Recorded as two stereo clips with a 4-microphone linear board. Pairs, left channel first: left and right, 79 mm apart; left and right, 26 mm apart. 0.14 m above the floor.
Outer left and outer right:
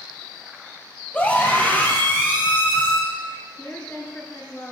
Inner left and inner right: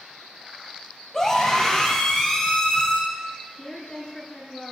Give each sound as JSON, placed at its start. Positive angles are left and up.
{"t": 1.1, "sound": "a scream", "side_deg": 20, "distance_m": 3.5}
{"t": 3.6, "sound": "a woman speaking", "side_deg": 25, "distance_m": 2.0}